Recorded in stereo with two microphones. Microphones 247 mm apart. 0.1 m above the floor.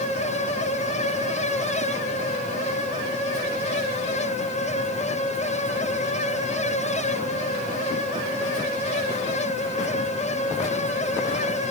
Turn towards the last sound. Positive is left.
No sound to turn to.